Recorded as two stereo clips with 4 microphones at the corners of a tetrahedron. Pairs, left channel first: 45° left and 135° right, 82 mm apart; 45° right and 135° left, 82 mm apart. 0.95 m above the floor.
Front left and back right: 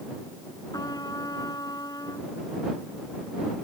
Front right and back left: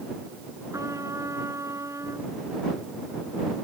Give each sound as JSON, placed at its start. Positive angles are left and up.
{"t": 0.7, "sound": "a trumpet", "azimuth_deg": 85}